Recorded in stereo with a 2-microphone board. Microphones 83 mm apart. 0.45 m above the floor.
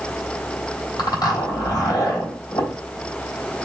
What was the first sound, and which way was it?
A zipper, 60° left (ahead or behind).